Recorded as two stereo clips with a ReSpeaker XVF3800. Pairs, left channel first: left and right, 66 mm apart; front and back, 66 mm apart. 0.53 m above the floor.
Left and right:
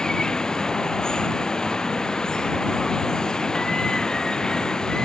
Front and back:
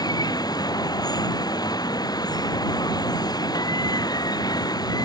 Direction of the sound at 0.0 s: 10° left.